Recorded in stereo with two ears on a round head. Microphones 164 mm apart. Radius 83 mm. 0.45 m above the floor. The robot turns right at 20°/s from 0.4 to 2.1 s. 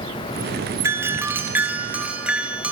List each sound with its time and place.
0.8 s a doorbell: 15° right (ahead or behind), 1.4 m; by 2.7 s 5° right (ahead or behind), 1.4 m